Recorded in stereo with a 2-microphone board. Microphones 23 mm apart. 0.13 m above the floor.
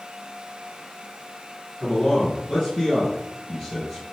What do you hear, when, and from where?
1.8 s a man speaking: 45° left (ahead or behind), 3.5 m; by 4.0 s 30° left (ahead or behind), 3 m